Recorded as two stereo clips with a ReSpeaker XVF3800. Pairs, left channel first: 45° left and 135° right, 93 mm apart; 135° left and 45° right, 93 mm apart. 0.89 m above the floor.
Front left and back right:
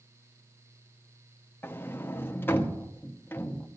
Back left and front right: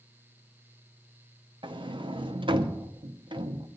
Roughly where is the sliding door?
Ahead.